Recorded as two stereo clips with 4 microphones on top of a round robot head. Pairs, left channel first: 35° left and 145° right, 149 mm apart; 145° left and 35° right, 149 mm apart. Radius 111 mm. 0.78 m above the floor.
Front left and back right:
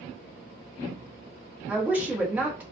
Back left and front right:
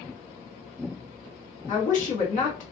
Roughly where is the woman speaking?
Behind left.